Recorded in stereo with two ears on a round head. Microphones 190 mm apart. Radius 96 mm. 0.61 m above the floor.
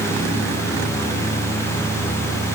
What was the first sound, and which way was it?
Only background noise.